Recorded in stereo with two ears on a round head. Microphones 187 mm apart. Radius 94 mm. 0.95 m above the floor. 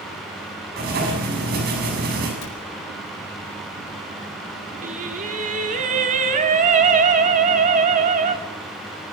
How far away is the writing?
About 7 m.